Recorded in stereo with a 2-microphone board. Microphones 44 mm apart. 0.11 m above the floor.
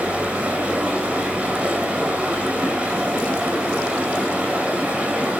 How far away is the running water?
About 9.5 m.